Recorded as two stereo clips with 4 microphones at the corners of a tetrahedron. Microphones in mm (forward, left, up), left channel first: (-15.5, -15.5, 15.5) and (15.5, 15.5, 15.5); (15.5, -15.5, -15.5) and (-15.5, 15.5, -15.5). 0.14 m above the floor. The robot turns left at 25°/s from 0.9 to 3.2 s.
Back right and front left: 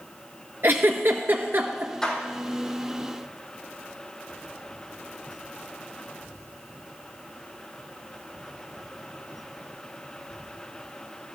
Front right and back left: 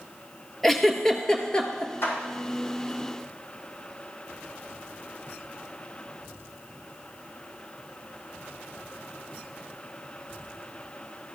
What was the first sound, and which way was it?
A giggle, 40° left.